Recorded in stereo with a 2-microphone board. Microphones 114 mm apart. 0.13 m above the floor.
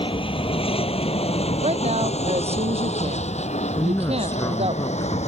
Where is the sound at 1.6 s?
65° right (ahead or behind).